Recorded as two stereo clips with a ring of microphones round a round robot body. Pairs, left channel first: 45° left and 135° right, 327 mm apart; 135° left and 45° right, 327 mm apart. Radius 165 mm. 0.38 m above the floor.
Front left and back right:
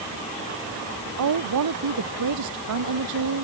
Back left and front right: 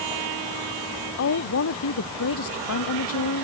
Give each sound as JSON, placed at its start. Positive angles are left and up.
{"t": 1.2, "sound": "a woman speaking", "azimuth_deg": -175}